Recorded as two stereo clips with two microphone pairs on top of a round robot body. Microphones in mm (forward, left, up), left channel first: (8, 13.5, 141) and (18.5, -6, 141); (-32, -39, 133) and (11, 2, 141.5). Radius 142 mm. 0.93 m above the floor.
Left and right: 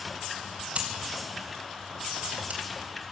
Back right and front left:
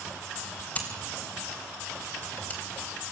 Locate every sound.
0.8 s scissors: 70° right, 3.5 m